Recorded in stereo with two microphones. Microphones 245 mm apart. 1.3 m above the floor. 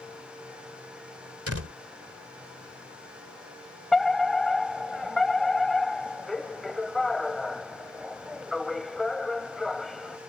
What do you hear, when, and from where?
1.5 s a door slam: 70° right (ahead or behind)
3.9 s a fire alarm: centre (ahead or behind)